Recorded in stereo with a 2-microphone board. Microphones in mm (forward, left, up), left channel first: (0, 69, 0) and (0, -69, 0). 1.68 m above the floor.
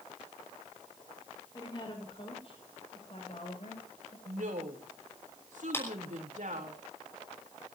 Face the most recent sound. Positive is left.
turn(degrees=15)  # may be behind; listen again after turning